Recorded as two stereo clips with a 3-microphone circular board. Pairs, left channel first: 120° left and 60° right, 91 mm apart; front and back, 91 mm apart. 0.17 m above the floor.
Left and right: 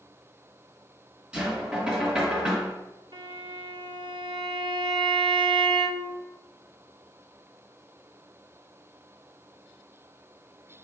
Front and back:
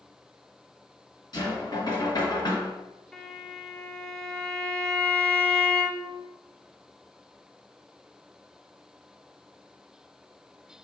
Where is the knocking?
15° left, 1.4 m.